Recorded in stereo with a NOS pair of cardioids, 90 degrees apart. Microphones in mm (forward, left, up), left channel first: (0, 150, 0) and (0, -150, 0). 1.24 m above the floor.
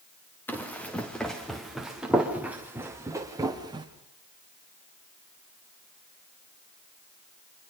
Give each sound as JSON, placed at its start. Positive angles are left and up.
{"t": 0.5, "sound": "running footsteps", "azimuth_deg": 5, "distance_m": 6.5}